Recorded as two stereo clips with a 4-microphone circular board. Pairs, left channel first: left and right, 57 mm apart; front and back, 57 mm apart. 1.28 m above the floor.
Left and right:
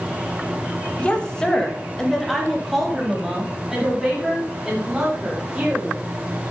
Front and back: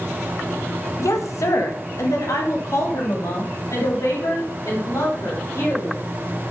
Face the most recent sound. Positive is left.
turn(degrees=-10)